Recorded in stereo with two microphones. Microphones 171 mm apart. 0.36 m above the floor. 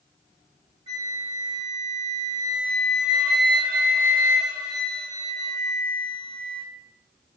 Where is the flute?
35° right (ahead or behind), 0.9 m.